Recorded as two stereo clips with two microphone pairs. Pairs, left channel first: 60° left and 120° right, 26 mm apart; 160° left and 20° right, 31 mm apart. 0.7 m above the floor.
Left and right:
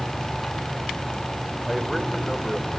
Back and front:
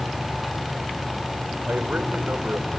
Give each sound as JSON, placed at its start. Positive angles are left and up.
{"t": 1.7, "sound": "a man speaking", "azimuth_deg": -30, "distance_m": 2.5}